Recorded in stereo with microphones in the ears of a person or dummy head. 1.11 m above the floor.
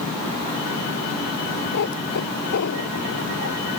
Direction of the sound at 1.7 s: 60° left (ahead or behind).